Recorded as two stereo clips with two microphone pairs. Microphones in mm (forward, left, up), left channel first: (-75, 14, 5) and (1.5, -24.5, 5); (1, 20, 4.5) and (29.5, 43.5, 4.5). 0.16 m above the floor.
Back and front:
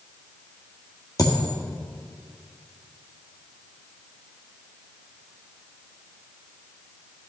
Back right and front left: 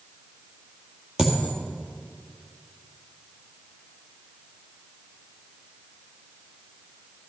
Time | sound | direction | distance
1.2 | a dropped coin | 110° left | 1.8 m